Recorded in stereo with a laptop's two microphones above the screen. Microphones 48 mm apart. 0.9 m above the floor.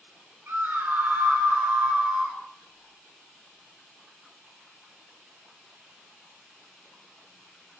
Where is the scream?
45° right (ahead or behind), 3 m; by 2.4 s 20° right (ahead or behind), 2.5 m.